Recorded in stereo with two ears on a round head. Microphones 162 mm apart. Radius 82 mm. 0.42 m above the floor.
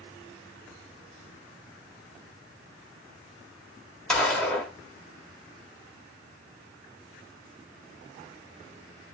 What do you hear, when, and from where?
4.1 s a gunshot: 5° left (ahead or behind), 1.2 m